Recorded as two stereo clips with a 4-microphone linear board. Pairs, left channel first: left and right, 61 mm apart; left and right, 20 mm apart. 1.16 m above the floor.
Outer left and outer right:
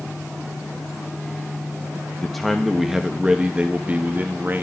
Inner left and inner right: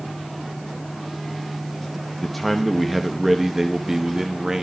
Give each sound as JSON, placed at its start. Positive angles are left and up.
{"t": 2.2, "sound": "a man speaking", "side_deg": 5, "distance_m": 1.7}